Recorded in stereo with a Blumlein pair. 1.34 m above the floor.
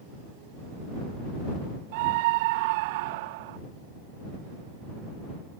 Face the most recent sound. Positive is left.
turn(degrees=-50)